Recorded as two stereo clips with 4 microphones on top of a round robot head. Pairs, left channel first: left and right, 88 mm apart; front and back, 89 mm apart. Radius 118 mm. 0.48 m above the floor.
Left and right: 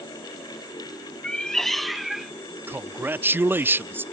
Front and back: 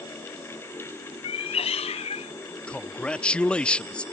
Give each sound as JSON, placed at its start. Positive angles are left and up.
{"t": 1.2, "sound": "a cat meowing", "azimuth_deg": 10}
{"t": 2.7, "sound": "a man speaking", "azimuth_deg": -60}